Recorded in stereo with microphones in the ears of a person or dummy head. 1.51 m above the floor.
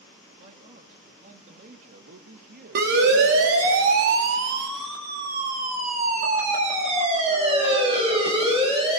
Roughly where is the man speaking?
Right.